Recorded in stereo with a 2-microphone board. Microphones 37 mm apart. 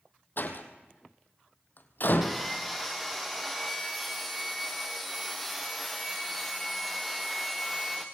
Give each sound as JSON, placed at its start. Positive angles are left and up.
{"t": 0.4, "sound": "a door slam", "side_deg": 60, "distance_m": 2.5}
{"t": 2.2, "sound": "sawing", "side_deg": 0, "distance_m": 3.5}